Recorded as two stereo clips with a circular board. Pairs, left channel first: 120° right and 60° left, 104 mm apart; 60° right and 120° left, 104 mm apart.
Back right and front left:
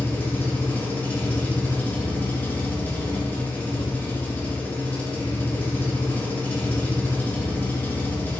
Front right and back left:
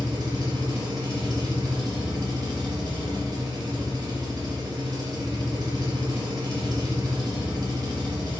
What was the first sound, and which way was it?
An engine running, 170° left.